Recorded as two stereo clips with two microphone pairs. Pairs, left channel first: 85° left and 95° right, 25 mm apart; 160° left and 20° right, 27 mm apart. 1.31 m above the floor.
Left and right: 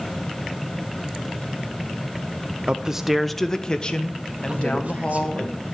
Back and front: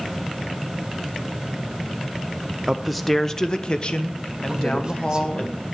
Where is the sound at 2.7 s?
90° right, 0.6 m; by 5.5 s 120° left, 1.7 m.